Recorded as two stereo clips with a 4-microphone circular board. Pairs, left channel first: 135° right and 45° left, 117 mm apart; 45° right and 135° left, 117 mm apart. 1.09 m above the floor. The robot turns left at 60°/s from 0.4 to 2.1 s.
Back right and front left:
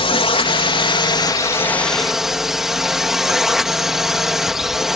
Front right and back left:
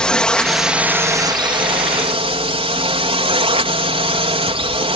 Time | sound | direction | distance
0.0 | a drone | 125° right | ?